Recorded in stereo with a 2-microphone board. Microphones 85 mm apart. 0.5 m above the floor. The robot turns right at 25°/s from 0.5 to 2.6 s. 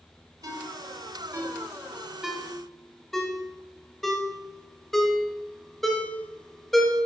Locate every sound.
0.4 s a ringtone: 50° right (ahead or behind), 1.2 m; by 7.0 s centre (ahead or behind), 1.2 m